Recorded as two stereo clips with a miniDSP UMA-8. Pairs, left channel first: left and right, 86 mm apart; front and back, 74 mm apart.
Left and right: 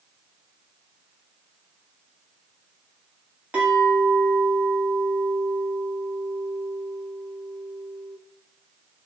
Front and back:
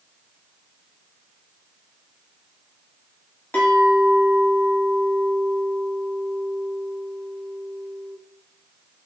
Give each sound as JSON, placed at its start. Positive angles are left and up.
{"t": 3.5, "sound": "a clink", "azimuth_deg": -35, "distance_m": 0.8}